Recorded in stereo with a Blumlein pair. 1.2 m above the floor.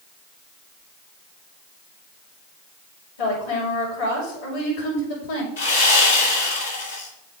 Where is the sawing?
65° left, 3.5 m.